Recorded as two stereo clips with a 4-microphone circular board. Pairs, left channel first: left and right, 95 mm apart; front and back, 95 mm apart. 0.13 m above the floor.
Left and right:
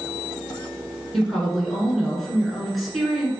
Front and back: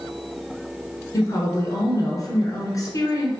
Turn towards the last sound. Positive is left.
turn(degrees=0)